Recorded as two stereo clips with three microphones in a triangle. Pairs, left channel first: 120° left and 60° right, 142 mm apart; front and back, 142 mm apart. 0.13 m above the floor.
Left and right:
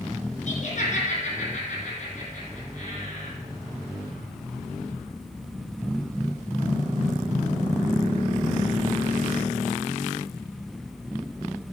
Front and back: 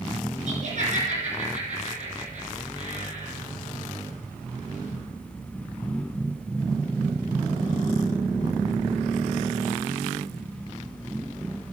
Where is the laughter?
150° left, 5.5 m.